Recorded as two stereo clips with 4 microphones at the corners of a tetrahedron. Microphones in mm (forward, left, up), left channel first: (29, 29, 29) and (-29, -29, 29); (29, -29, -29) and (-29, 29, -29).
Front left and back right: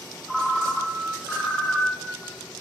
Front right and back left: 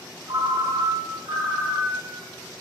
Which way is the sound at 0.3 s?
130° left.